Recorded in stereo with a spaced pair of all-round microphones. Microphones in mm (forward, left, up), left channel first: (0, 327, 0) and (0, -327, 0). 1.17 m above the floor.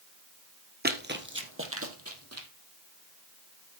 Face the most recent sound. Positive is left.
turn(degrees=-20)  # may be behind; listen again after turning